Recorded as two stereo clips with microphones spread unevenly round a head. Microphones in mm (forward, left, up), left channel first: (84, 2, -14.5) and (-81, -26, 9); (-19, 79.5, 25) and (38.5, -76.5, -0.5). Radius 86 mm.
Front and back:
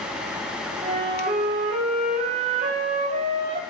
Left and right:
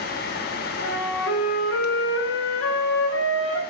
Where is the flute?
135° left, 0.6 m.